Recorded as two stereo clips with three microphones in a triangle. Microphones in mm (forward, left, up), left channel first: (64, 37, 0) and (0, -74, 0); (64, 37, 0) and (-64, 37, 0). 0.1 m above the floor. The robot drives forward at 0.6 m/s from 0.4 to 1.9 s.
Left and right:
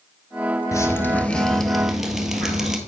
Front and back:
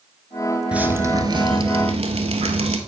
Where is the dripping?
105° left, 0.7 m; by 2.8 s 155° left, 1.1 m.